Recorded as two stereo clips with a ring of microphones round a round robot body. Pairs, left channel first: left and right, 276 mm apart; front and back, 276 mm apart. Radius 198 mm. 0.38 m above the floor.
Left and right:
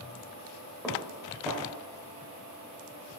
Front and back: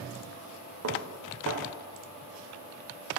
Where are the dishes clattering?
Straight behind, 0.9 m.